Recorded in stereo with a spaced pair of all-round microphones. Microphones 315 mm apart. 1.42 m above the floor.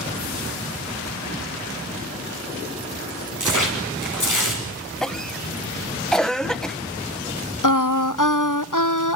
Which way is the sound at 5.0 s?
Centre (ahead or behind).